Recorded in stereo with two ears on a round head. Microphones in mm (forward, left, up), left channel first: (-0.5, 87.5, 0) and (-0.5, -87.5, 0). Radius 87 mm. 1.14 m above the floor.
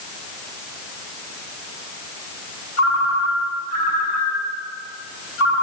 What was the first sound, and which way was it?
A ringtone, 65° left (ahead or behind).